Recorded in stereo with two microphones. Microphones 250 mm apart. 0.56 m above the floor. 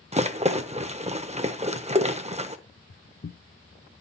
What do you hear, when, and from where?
0.1 s a rattle: 25° right (ahead or behind), 0.7 m
2.7 s footsteps: 60° left (ahead or behind), 1.4 m; by 4.0 s 10° right (ahead or behind), 0.6 m